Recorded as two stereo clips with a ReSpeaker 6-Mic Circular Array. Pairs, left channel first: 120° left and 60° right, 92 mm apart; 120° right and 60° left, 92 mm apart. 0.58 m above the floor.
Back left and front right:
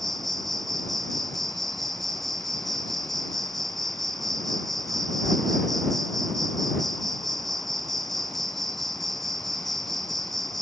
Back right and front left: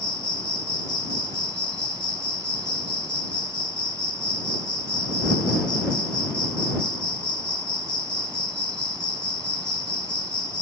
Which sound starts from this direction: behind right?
An insect, at 0.0 s.